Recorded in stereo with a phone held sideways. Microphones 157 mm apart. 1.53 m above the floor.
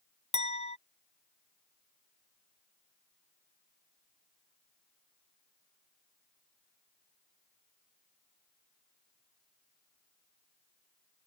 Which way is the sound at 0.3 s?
40° left (ahead or behind).